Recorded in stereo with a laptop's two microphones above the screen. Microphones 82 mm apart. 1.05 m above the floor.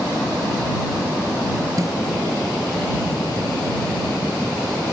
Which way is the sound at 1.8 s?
45° right (ahead or behind).